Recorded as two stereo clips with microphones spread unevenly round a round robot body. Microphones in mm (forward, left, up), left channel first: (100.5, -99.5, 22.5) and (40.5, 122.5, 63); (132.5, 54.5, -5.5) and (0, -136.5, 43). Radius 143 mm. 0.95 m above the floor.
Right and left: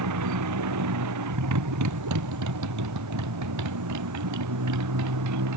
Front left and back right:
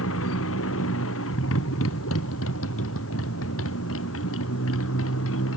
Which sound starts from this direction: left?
A motorcycle, at 0.0 s.